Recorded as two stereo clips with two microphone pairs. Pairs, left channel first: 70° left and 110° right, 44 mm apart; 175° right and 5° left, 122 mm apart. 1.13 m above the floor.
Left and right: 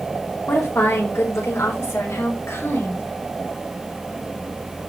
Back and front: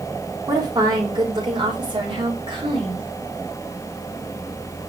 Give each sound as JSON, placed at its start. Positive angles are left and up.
{"t": 0.5, "sound": "a woman speaking", "azimuth_deg": 60, "distance_m": 4.5}